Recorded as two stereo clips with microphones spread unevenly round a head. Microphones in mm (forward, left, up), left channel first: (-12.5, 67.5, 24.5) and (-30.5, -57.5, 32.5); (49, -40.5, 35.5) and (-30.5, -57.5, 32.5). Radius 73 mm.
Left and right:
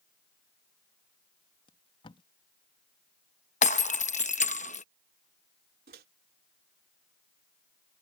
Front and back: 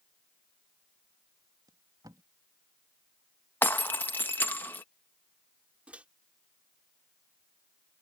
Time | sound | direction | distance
1.7 | tape being pulled | 130° left | ?
3.6 | breaking glass | 80° left | ?
5.9 | a microwave | 95° right | ?